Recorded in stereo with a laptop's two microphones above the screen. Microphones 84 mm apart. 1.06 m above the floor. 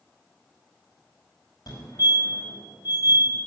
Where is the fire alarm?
60° left (ahead or behind), 4.5 m.